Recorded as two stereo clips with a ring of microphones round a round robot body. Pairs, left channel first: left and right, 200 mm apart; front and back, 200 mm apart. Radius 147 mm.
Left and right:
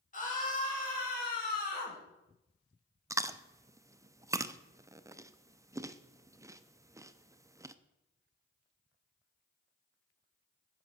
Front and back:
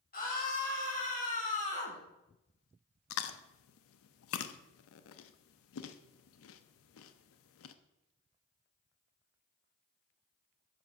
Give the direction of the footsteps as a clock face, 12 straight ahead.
No footsteps in this recording.